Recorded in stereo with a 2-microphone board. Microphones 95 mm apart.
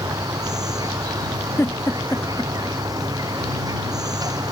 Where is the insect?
40° right (ahead or behind).